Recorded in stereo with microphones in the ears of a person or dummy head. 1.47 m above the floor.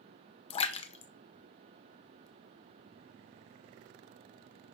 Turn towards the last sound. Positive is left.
turn(degrees=35)  # may be behind; listen again after turning